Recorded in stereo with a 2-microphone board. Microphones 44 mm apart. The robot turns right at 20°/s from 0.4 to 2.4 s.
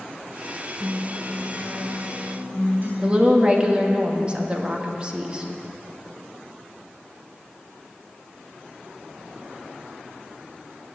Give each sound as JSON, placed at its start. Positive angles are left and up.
{"t": 0.8, "sound": "a guitar", "azimuth_deg": -160, "distance_m": 3.5}
{"t": 3.0, "sound": "a woman speaking", "side_deg": -25, "distance_m": 1.4}